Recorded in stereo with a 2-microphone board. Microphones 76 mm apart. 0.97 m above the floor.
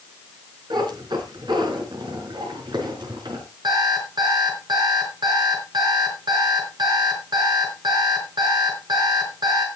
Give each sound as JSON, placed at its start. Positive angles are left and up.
{"t": 0.7, "sound": "a cat meowing", "side_deg": -70, "distance_m": 4.0}
{"t": 3.6, "sound": "an alarm clock", "side_deg": -65, "distance_m": 6.0}